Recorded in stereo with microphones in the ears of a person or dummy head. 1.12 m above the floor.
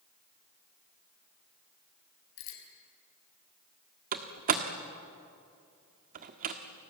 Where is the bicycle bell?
80° left, 5.5 m.